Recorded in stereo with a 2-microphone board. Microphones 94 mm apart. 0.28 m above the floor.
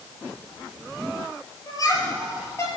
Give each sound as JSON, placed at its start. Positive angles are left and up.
{"t": 1.7, "sound": "laughter", "side_deg": 40, "distance_m": 7.0}